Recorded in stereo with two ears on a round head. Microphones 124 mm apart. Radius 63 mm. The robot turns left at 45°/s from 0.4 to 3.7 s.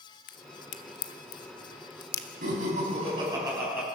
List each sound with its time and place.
0.3 s a crack: 70° left (ahead or behind), 1.0 m; by 2.3 s 20° left (ahead or behind), 1.0 m
2.4 s laughter: 105° right, 7.5 m; by 3.9 s 165° right, 7.5 m